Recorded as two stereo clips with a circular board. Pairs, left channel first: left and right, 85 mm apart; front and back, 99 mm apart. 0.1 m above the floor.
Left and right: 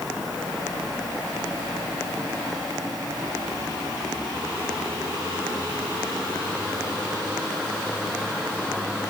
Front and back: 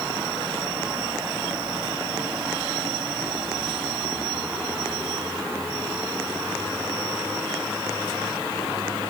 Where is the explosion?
No explosion in this recording.